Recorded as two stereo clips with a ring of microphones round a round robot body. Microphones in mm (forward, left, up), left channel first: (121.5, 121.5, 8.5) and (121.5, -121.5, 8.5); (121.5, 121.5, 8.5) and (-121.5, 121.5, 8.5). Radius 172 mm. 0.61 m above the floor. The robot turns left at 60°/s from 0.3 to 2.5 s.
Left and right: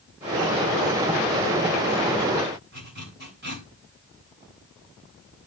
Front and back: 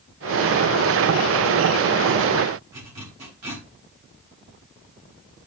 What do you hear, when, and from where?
2.7 s a zipper: 150° right, 4 m